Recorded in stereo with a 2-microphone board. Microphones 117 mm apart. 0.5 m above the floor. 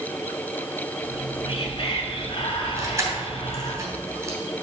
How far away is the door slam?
No door slam in this recording.